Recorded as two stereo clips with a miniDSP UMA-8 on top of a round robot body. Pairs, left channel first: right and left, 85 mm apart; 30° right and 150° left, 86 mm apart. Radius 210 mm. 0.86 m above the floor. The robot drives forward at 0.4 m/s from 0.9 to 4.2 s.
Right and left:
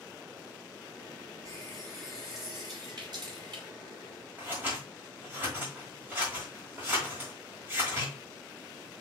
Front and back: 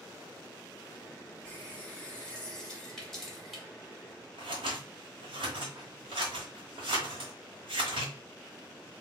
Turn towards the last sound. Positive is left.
turn(degrees=160)